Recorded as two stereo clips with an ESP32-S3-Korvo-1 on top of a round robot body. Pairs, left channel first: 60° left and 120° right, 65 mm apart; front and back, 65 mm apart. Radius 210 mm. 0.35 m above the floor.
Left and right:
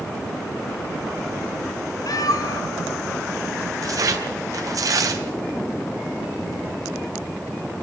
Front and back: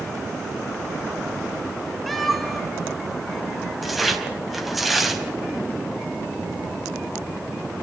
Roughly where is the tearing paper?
Right.